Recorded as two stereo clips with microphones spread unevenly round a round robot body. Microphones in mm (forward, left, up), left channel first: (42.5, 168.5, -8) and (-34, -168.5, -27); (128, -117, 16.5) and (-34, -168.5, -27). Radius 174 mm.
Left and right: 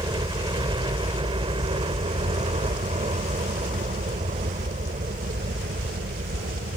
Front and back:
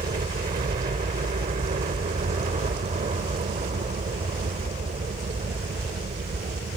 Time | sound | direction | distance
0.0 | a helicopter | 175° right | ?